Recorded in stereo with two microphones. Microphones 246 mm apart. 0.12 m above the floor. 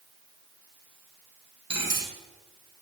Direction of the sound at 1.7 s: 75° right (ahead or behind).